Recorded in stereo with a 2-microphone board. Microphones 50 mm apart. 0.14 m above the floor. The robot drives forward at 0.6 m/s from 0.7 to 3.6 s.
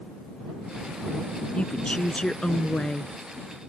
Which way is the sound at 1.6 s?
25° left (ahead or behind).